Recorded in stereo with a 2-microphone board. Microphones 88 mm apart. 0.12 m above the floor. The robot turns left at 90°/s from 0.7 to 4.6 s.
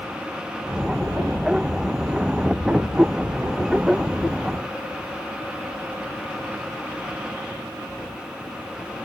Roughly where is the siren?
I don't hear a siren.